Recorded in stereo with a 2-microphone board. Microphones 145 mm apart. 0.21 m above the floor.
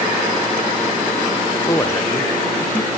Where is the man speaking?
20° left (ahead or behind), 2.5 m; by 2.9 s 15° left (ahead or behind), 3 m.